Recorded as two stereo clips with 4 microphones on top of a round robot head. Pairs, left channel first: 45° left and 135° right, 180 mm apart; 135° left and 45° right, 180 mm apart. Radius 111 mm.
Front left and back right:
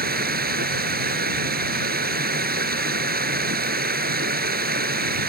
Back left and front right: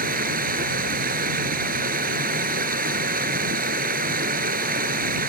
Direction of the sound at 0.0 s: 95° right.